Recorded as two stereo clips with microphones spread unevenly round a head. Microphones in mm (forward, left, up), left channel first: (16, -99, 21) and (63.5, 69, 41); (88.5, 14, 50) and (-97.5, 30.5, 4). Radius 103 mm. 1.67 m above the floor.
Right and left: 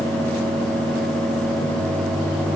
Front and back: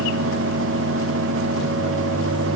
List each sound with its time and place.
Only background noise.